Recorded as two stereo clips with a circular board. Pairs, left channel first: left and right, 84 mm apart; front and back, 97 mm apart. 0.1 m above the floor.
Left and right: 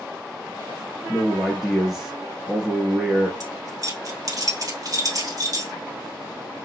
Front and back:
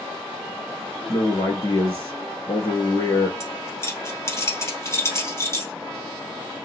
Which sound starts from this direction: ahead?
A man speaking, at 1.1 s.